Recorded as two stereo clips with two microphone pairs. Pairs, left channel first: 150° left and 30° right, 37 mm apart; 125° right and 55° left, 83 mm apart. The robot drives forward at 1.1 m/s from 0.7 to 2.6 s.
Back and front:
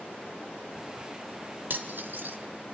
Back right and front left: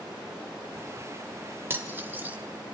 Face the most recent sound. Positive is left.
turn(degrees=-20)